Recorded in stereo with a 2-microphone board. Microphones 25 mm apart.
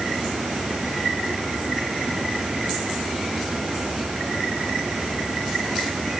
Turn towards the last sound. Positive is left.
No sound to turn to.